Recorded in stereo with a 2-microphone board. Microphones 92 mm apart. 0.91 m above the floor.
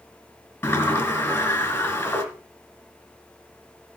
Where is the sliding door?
25° left (ahead or behind), 3 m.